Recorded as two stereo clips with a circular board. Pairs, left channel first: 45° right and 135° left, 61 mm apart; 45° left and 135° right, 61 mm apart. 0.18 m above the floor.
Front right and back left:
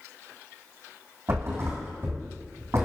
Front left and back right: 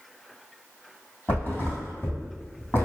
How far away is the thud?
About 1.9 m.